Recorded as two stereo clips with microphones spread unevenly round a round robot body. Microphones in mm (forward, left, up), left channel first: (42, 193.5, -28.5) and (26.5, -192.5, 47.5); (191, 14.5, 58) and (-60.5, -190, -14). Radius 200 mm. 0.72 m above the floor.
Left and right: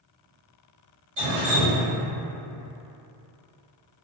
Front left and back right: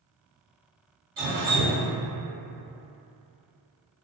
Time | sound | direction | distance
1.2 | dripping | 140° right | 1.4 m